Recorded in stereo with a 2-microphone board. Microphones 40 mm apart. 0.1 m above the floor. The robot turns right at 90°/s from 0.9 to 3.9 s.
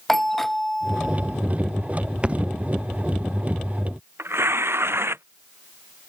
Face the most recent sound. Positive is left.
turn(degrees=-85)